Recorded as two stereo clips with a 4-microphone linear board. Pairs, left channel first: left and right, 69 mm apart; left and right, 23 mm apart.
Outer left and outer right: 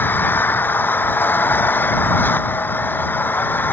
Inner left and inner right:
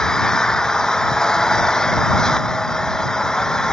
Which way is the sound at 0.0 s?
30° left (ahead or behind).